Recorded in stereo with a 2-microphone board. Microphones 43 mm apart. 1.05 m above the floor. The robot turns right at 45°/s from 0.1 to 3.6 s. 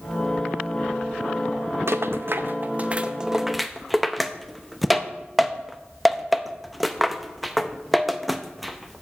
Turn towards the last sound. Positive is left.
turn(degrees=0)  # may be behind; listen again after turning